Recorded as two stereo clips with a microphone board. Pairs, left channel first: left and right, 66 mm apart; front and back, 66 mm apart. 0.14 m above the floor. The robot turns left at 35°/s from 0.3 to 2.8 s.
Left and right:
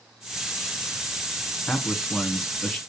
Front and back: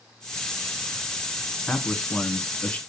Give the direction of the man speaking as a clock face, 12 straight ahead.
10 o'clock.